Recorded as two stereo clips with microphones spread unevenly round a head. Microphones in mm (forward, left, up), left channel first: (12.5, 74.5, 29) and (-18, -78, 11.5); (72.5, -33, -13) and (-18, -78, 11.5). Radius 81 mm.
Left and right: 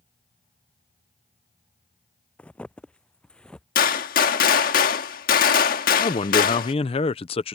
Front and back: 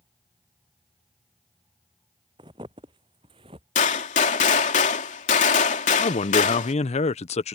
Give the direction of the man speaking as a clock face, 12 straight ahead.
11 o'clock.